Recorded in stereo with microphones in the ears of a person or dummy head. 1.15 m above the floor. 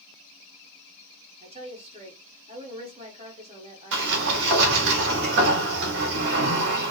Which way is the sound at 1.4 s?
25° right (ahead or behind).